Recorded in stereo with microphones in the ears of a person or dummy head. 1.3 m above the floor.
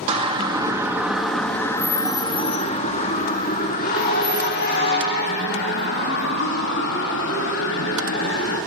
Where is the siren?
30° right (ahead or behind), 2 m; by 8.6 s 75° left (ahead or behind), 7 m.